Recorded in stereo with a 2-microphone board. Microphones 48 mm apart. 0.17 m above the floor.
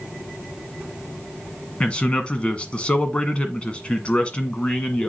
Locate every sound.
1.8 s a man speaking: 25° left (ahead or behind), 1.5 m